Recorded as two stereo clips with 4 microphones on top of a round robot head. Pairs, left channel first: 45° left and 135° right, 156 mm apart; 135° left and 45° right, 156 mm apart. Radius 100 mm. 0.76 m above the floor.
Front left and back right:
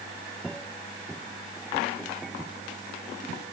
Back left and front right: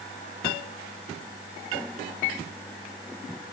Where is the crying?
I don't hear crying.